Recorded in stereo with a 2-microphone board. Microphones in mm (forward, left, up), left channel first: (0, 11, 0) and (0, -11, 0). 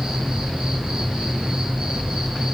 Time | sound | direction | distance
0.0 | an insect | 50° right (ahead or behind) | 6.5 m